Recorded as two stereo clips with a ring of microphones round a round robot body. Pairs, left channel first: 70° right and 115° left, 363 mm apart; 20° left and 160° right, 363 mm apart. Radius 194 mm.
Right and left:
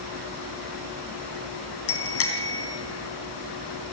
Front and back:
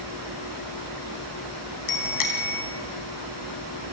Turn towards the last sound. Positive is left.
turn(degrees=-15)